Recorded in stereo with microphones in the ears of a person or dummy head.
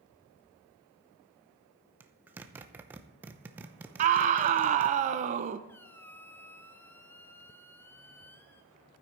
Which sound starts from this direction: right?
A scream, at 4.0 s.